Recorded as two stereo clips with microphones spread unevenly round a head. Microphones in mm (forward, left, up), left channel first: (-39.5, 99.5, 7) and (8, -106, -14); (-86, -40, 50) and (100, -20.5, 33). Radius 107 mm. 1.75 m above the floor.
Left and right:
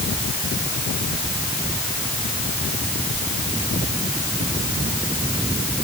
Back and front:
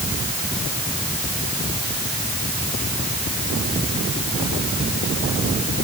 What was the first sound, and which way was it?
Only background noise.